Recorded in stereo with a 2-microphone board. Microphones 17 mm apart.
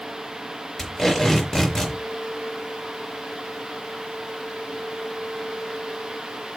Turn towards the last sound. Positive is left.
turn(degrees=30)  # may be behind; listen again after turning